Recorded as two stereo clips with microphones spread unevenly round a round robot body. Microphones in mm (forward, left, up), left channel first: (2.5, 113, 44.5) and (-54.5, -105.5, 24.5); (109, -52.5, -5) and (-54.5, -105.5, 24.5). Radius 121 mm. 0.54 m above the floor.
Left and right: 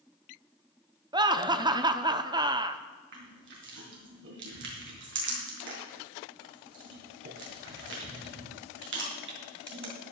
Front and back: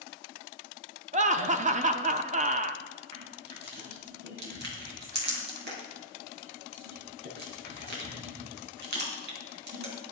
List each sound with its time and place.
1.1 s laughter: 145° right, 0.8 m
3.1 s crushing: 140° right, 3.5 m